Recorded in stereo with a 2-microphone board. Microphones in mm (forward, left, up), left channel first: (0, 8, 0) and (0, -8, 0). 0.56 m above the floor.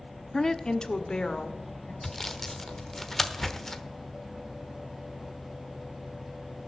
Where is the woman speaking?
20° left (ahead or behind), 0.7 m; by 1.9 s 70° left (ahead or behind), 2.5 m.